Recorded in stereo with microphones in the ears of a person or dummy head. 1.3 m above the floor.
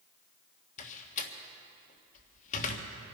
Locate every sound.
0.8 s a door slam: 35° left (ahead or behind), 1.4 m